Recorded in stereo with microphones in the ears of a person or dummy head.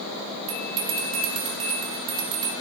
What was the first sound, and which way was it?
A bell, 25° right (ahead or behind).